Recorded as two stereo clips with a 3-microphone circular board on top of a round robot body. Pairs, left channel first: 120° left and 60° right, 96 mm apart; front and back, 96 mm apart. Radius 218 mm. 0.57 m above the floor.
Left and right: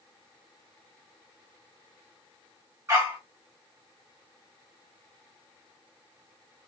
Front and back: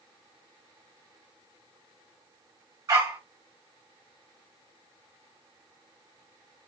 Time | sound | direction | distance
2.9 | a dog barking | 125° right | 0.6 m